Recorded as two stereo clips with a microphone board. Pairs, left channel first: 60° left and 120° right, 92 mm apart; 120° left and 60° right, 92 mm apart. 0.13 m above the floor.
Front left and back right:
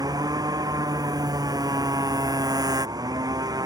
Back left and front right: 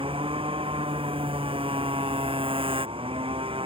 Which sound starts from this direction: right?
A motorcycle, at 0.0 s.